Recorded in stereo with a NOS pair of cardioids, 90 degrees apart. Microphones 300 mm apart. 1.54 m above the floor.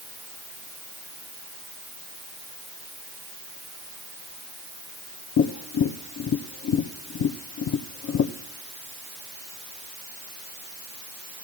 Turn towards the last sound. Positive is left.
turn(degrees=55)